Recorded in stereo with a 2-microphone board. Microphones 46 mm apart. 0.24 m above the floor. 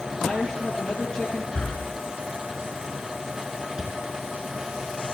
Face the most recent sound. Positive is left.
turn(degrees=-15)  # may be behind; listen again after turning